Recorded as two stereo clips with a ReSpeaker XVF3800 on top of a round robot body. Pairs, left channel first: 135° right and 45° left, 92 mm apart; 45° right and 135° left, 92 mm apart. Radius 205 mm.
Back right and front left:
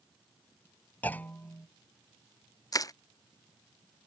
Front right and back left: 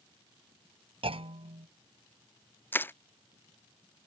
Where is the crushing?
105° right.